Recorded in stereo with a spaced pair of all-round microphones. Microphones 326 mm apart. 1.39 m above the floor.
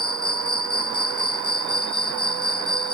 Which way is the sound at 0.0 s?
60° left (ahead or behind).